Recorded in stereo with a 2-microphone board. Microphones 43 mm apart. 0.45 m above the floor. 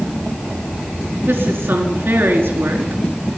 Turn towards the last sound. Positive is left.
turn(degrees=-75)  # may be behind; listen again after turning